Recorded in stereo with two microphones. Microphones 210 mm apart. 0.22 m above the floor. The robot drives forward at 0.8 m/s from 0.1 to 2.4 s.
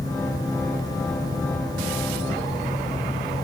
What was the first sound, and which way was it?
Only background noise.